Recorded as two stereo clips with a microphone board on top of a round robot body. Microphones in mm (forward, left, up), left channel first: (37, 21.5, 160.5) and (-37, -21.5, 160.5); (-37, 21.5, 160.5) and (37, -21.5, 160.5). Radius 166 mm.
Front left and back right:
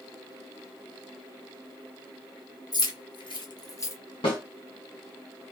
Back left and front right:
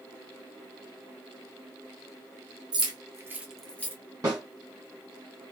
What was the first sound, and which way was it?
Keys jangling, straight ahead.